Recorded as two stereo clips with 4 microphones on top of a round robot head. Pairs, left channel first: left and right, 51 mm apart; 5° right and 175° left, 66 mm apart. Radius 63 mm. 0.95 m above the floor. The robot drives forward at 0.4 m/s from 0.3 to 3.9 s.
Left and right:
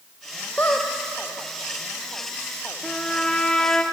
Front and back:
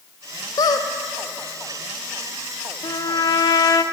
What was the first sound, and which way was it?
A squeak, 20° left.